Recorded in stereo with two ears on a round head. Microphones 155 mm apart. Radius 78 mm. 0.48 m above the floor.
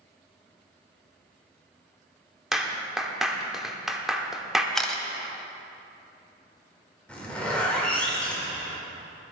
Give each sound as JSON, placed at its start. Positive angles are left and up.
{"t": 2.5, "sound": "a clap", "side_deg": -5, "distance_m": 0.8}
{"t": 4.8, "sound": "a camera shutter", "side_deg": 0, "distance_m": 0.9}
{"t": 7.1, "sound": "a zipper", "side_deg": 5, "distance_m": 1.8}